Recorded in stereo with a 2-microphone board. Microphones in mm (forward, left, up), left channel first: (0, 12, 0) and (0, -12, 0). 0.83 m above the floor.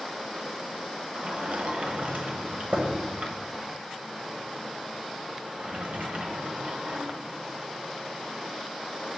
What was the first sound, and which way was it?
A sliding door, 55° right (ahead or behind).